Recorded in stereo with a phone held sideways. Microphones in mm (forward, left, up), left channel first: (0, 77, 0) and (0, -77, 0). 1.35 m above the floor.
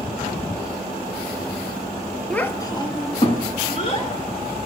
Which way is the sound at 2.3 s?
5° left (ahead or behind).